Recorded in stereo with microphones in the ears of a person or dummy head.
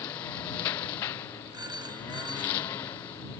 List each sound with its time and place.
0.0 s a lawn mower: 30° left (ahead or behind)
1.5 s a phone ringing: 30° right (ahead or behind)